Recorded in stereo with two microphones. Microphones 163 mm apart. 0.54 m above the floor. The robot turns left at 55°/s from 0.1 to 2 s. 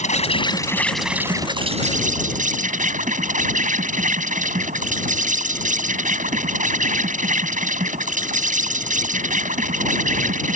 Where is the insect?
50° left; by 10.6 s 55° right.